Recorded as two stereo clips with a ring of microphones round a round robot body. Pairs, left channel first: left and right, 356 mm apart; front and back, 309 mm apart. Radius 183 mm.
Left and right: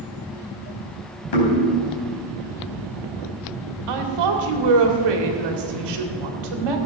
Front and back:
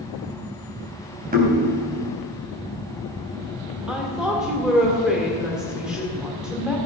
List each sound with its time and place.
1.3 s knocking: 115° left, 4 m
3.9 s a woman speaking: 90° right, 2 m